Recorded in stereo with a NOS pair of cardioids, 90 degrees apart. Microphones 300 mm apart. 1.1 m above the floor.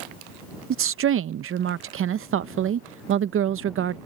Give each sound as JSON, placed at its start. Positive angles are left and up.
{"t": 0.7, "sound": "a woman speaking", "azimuth_deg": -45}